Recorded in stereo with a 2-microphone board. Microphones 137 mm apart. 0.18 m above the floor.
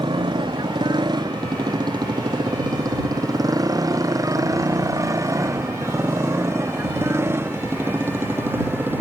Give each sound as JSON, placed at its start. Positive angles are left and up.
{"t": 0.0, "sound": "a motorcycle", "side_deg": -35}